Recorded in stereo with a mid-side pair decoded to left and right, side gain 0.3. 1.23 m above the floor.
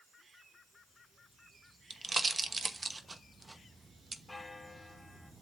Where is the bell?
15° left, 3.5 m.